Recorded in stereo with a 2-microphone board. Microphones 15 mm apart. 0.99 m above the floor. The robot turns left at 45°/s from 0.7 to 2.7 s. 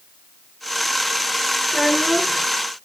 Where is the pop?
I don't hear a pop.